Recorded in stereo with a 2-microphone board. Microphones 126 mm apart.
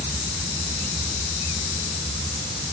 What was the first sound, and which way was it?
Only background noise.